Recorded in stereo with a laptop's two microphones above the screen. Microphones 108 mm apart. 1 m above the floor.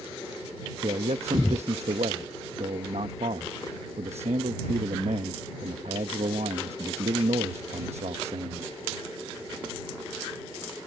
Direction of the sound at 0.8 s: 80° right.